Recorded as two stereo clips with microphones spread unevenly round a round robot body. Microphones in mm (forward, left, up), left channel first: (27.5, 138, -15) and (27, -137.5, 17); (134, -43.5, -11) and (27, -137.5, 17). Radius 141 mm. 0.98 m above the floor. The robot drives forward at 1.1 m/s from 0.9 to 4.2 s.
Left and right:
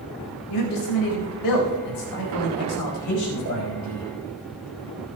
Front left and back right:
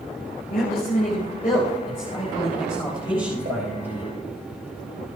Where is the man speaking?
90° left, 4.5 m; by 4.1 s 125° left, 6 m.